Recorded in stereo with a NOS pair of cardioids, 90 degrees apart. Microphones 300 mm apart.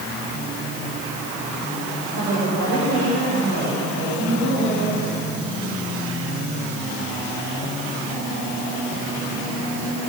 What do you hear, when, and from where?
2.1 s a woman speaking: 55° right, 9 m